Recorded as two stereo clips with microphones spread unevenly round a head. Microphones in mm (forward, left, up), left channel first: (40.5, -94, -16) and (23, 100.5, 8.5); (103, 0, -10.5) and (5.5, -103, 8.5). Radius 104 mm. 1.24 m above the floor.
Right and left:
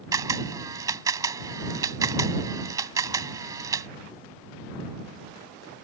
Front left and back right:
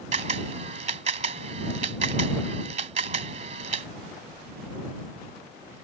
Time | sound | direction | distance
0.1 | a camera shutter | 170° left | ?